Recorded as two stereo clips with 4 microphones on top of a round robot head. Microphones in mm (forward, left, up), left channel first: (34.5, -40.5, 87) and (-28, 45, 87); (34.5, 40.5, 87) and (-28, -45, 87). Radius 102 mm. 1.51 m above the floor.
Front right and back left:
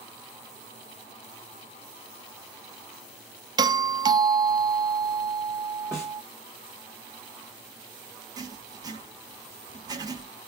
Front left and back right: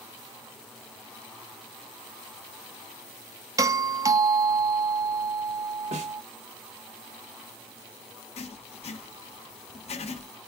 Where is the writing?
70° left, 1.3 m.